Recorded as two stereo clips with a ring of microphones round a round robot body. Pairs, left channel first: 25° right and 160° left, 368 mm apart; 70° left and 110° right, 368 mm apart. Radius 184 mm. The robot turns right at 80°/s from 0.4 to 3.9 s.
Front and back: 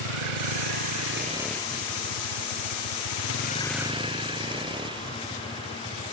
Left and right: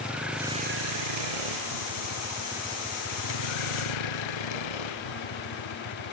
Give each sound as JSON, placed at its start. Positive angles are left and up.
{"t": 0.0, "sound": "a vehicle", "azimuth_deg": 160}